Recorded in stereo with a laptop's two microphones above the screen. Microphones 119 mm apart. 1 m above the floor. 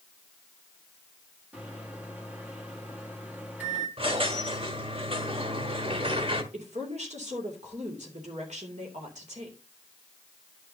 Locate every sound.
1.5 s a microwave: 15° right (ahead or behind), 1.7 m
4.0 s a squeak: 50° right (ahead or behind), 1.4 m
6.5 s a woman speaking: 80° right, 2.5 m